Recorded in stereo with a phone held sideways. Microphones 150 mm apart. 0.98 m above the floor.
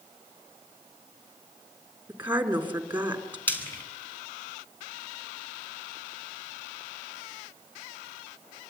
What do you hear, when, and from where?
2.1 s a woman speaking: 10° right (ahead or behind), 3.5 m
3.5 s frying: 15° left (ahead or behind), 5 m